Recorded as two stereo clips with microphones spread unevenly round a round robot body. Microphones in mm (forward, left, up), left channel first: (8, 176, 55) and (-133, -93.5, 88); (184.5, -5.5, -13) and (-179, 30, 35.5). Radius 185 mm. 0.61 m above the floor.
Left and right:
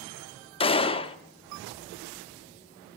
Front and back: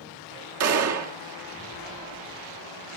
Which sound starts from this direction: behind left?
A gunshot, at 0.6 s.